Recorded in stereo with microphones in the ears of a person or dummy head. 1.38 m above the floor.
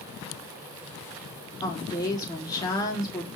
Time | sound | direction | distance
1.6 | a woman speaking | 20° left (ahead or behind) | 3.5 m